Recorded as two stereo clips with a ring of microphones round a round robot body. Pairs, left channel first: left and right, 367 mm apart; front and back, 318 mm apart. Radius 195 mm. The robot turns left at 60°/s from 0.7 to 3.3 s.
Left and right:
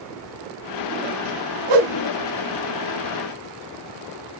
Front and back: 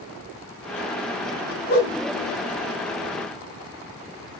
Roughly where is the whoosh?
Ahead right.